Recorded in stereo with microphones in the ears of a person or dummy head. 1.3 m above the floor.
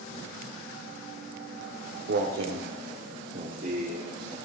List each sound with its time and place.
1.6 s footsteps: 60° right (ahead or behind), 2.5 m; by 4.3 s 30° right (ahead or behind), 4.5 m